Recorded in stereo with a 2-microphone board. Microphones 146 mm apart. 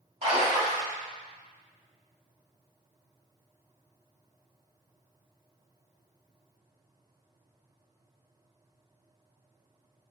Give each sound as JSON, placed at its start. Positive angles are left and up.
{"t": 0.2, "sound": "a splash", "side_deg": -40, "distance_m": 1.1}